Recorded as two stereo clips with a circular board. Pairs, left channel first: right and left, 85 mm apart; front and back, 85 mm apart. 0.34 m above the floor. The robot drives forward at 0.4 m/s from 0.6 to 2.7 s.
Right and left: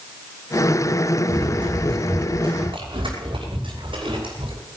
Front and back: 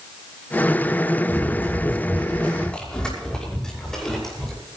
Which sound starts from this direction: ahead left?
Running footsteps, at 1.3 s.